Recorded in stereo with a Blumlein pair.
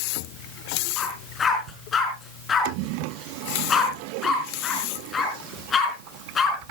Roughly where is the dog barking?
Ahead.